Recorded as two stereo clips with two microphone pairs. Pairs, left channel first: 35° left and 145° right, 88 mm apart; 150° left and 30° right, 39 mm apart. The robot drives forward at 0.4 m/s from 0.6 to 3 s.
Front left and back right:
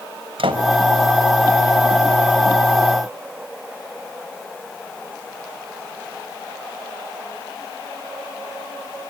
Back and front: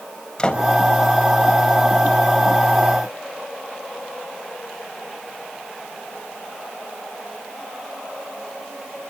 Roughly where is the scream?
I don't hear a scream.